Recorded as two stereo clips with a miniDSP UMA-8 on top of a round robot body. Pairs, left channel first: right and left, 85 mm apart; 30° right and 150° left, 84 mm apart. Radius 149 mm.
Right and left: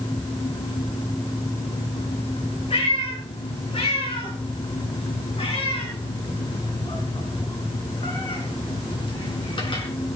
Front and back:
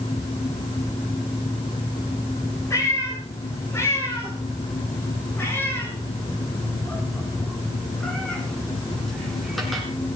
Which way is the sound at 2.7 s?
85° right.